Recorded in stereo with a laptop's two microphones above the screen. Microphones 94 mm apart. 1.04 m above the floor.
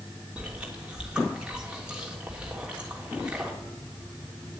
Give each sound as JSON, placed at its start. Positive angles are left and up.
{"t": 0.4, "sound": "chewing", "side_deg": -10, "distance_m": 3.0}